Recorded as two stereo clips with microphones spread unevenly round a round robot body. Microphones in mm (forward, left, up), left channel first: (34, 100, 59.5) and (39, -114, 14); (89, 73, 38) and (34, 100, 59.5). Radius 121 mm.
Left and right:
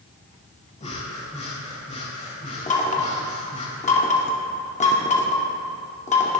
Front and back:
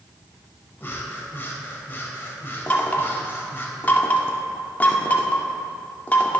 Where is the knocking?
30° left, 2 m.